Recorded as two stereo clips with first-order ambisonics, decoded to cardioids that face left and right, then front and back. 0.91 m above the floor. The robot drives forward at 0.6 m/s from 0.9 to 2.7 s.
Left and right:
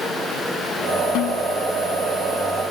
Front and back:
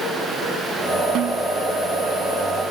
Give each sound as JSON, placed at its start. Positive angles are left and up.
{"t": 1.1, "sound": "a snare drum", "azimuth_deg": 130}